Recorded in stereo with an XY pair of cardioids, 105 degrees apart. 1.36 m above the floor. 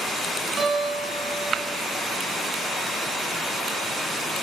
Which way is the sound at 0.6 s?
45° right.